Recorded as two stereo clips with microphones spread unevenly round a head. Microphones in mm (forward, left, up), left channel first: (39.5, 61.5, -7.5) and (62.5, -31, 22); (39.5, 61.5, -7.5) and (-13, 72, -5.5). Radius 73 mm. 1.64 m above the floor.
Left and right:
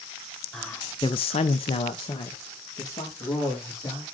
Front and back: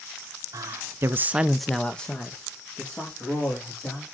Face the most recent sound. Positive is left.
turn(degrees=45)